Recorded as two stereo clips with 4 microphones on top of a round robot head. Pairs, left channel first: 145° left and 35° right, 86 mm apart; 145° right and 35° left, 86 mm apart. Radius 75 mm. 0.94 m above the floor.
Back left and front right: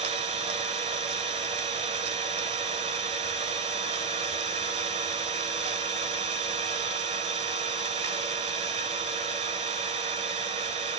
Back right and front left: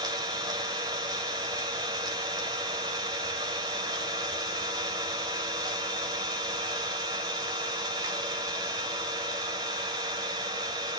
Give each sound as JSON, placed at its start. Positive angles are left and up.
{"t": 0.0, "sound": "an engine running", "azimuth_deg": -10, "distance_m": 1.3}